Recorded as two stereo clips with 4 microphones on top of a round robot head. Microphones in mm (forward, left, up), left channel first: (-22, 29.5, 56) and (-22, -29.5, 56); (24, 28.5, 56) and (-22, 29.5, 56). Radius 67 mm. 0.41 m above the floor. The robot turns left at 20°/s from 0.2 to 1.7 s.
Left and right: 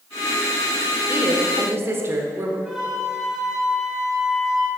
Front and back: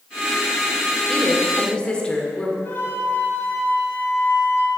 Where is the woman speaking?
55° right, 1.2 m; by 2.5 s 65° right, 1.2 m.